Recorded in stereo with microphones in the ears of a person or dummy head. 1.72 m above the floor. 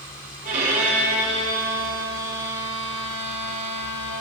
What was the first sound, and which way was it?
A violin, 45° right (ahead or behind).